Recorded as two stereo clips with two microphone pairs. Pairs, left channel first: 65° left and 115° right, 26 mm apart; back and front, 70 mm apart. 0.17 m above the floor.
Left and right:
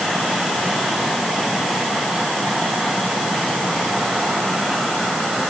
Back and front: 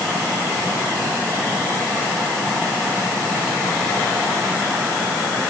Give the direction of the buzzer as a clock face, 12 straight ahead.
No buzzer in this recording.